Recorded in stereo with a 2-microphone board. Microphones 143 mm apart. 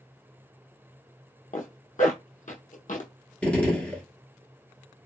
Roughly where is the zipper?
Left.